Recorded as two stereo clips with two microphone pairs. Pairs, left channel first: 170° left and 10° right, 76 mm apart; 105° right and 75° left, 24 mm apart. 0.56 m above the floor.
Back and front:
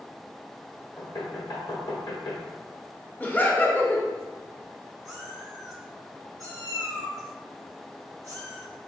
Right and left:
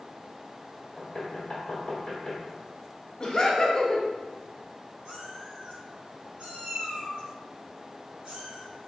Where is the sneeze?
I don't hear a sneeze.